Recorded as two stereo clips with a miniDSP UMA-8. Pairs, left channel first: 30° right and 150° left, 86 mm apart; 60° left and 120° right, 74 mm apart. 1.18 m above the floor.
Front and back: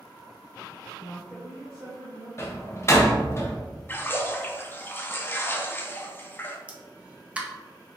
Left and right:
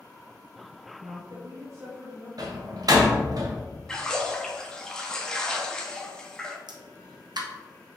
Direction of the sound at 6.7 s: 135° right.